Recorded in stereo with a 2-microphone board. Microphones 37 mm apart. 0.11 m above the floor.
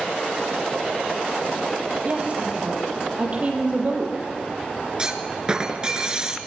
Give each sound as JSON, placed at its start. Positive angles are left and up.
{"t": 2.0, "sound": "a woman speaking", "side_deg": -35, "distance_m": 4.5}
{"t": 5.0, "sound": "a clunk", "side_deg": -20, "distance_m": 1.7}